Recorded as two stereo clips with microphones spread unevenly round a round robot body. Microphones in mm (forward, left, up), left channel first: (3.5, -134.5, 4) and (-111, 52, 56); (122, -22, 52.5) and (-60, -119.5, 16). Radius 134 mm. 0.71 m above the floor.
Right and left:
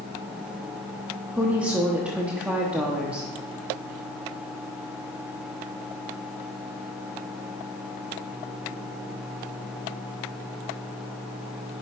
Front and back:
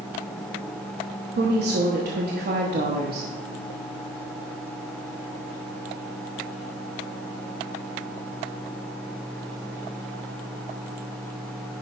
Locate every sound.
1.3 s a woman speaking: 145° right, 1.0 m